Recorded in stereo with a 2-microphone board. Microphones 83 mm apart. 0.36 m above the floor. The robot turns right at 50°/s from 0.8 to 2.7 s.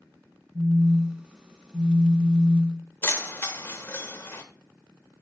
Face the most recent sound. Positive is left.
turn(degrees=30)  # may be behind; listen again after turning